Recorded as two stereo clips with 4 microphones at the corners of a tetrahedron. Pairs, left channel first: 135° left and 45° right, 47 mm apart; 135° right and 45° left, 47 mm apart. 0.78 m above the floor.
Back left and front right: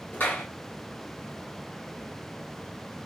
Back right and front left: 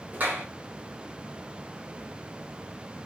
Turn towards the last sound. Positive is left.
turn(degrees=95)